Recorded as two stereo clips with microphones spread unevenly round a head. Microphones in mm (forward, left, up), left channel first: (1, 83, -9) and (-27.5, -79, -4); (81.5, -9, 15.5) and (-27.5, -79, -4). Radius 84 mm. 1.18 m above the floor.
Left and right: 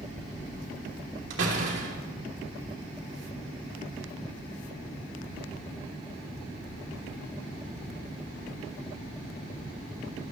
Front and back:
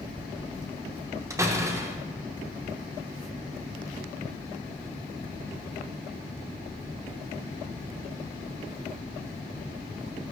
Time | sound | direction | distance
1.3 | a door slam | 80° right | 3 m